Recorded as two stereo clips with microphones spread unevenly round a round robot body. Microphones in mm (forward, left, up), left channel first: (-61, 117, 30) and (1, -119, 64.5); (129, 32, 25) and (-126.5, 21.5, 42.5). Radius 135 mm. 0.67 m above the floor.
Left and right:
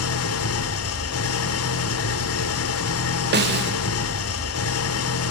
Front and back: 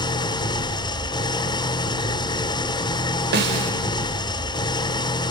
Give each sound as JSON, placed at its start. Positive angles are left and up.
{"t": 0.0, "sound": "an engine running", "azimuth_deg": 75, "distance_m": 1.4}
{"t": 3.3, "sound": "a snare drum", "azimuth_deg": -125, "distance_m": 3.0}